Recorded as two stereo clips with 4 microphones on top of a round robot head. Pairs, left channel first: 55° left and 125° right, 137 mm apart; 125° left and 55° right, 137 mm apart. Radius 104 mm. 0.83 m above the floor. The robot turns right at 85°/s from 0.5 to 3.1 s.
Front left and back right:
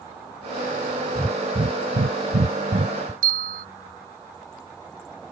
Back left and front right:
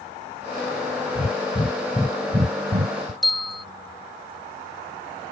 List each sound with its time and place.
1.1 s breathing: 145° left; by 3.1 s 50° right
3.2 s a bell: 145° right